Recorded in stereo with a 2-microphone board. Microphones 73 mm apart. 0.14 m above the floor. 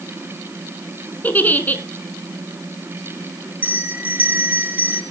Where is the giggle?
25° left (ahead or behind), 1.1 m.